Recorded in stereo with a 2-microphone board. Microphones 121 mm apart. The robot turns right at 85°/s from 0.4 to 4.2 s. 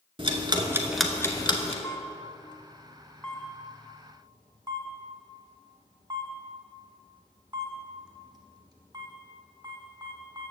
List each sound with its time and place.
0.2 s ticking: 45° right (ahead or behind), 0.7 m; by 1.7 s 60° left (ahead or behind), 0.7 m
1.8 s a camera shutter: 25° left (ahead or behind), 1.0 m; by 10.5 s 35° right (ahead or behind), 1.0 m